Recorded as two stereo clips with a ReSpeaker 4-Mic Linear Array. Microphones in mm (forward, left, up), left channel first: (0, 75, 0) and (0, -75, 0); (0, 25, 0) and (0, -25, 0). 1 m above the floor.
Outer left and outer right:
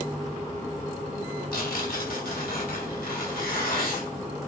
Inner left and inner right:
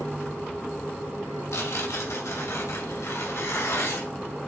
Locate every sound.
1.5 s tearing paper: 80° left, 2.5 m